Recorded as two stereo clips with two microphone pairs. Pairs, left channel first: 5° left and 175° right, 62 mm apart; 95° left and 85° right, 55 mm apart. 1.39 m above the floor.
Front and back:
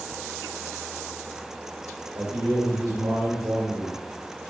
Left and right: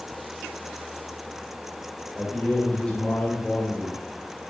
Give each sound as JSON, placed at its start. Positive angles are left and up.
{"t": 2.1, "sound": "a man speaking", "azimuth_deg": 165, "distance_m": 1.8}